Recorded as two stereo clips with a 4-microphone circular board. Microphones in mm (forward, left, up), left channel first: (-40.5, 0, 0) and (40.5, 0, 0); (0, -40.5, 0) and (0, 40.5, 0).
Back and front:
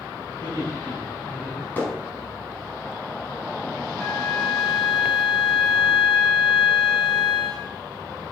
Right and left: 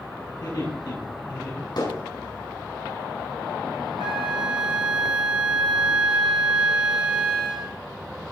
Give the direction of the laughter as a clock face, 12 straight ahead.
4 o'clock.